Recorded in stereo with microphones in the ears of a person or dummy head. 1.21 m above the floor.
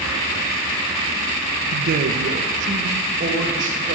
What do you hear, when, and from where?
1.7 s a man speaking: 60° right (ahead or behind), 0.6 m; by 4.0 s 45° right (ahead or behind), 2 m